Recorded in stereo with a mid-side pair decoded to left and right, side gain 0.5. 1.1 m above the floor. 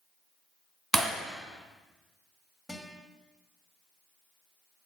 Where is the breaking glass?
25° right, 2.5 m.